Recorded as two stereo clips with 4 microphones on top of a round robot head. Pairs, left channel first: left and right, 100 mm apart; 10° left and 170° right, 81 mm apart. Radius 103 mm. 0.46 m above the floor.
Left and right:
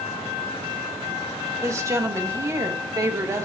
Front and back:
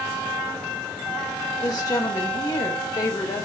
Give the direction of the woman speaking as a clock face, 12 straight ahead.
1 o'clock.